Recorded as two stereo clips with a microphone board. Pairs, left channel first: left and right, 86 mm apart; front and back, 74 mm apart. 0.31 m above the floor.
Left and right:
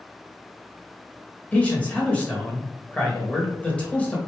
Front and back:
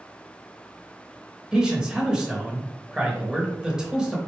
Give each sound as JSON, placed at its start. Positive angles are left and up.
{"t": 1.5, "sound": "a man speaking", "azimuth_deg": 125, "distance_m": 0.9}